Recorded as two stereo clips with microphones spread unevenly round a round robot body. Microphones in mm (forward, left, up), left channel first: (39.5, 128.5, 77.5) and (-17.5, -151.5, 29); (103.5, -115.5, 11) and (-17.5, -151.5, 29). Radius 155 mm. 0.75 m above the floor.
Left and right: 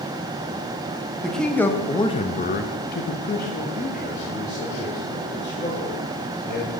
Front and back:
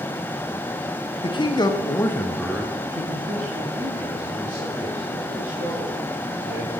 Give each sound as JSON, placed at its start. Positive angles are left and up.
{"t": 1.2, "sound": "a man speaking", "azimuth_deg": -15, "distance_m": 1.1}